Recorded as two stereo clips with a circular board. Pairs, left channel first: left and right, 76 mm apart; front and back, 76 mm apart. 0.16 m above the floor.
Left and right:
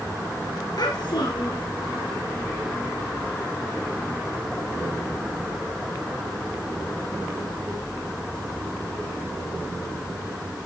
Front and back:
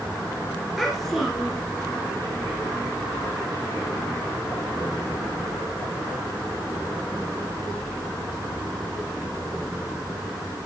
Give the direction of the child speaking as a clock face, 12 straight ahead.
9 o'clock.